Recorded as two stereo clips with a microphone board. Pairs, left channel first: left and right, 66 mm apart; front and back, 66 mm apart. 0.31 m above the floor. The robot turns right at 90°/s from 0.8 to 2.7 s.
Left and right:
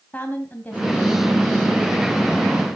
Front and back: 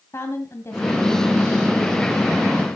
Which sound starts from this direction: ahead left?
A woman speaking, at 0.1 s.